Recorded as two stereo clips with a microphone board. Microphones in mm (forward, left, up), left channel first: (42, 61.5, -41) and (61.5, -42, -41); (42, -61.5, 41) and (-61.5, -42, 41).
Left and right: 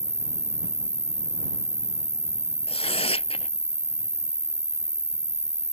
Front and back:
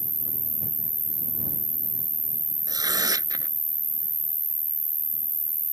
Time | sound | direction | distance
0.0 | an insect | 135° right | ?
2.7 | tearing paper | 120° left | ?